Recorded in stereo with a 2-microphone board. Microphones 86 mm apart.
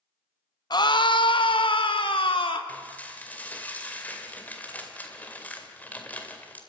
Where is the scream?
50° left (ahead or behind), 0.7 m; by 2.6 s 80° left, 2 m.